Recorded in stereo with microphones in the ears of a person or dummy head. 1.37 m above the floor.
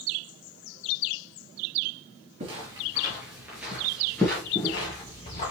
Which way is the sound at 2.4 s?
30° right (ahead or behind).